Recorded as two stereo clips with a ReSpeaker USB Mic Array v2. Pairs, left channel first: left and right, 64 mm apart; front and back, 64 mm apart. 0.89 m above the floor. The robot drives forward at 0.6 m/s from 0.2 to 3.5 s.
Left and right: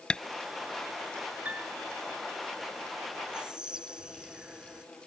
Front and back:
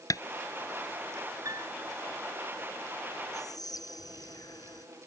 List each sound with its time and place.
0.1 s tapping: 15° left
1.4 s a piano: 155° right
3.3 s whispering: 10° right